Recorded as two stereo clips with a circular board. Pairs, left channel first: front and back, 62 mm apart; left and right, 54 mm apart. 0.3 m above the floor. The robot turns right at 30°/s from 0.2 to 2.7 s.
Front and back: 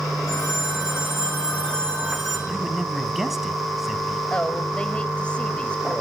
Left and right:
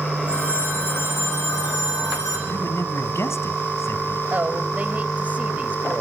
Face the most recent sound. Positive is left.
turn(degrees=-55)